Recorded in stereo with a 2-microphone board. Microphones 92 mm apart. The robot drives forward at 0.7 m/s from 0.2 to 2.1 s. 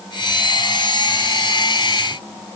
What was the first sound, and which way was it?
Only background noise.